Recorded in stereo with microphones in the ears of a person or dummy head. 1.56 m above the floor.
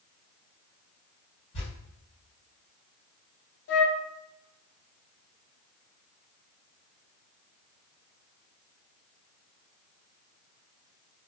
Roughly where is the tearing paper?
Left.